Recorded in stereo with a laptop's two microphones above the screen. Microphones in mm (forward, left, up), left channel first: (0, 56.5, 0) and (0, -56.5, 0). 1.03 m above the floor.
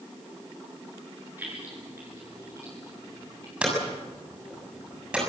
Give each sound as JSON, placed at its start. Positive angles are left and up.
{"t": 1.4, "sound": "keys jangling", "side_deg": -20, "distance_m": 9.5}
{"t": 3.6, "sound": "hammering", "side_deg": -10, "distance_m": 7.0}